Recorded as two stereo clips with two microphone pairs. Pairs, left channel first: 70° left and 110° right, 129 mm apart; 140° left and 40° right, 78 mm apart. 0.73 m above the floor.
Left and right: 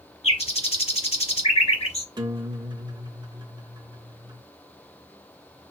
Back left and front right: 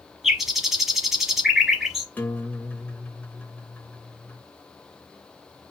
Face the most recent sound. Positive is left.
turn(degrees=-155)